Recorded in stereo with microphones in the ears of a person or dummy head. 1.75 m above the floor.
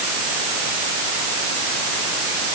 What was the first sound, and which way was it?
Only background noise.